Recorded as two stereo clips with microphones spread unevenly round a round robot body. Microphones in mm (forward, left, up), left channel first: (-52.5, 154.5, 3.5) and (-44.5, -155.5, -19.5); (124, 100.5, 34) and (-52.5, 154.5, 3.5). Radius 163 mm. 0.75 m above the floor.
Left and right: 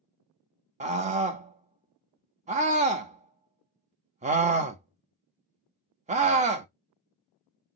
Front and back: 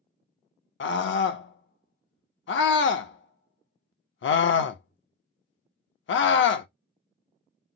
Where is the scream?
25° right, 0.6 m.